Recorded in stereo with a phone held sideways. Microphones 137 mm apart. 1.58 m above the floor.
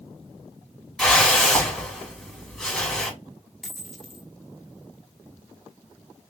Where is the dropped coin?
Centre (ahead or behind), 1.3 m.